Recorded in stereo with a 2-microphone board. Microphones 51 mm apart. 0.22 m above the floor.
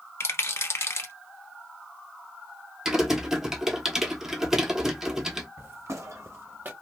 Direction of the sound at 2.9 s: 10° right (ahead or behind).